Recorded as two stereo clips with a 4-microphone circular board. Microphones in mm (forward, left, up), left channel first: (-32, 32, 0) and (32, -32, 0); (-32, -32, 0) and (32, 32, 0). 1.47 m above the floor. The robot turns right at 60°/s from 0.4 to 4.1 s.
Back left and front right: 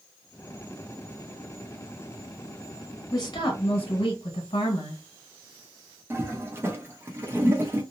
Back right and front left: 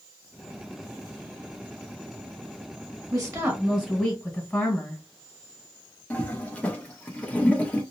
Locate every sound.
3.1 s a woman speaking: 85° left, 1.2 m; by 5.0 s 145° left, 1.2 m
6.1 s a toilet flushing: 75° right, 0.8 m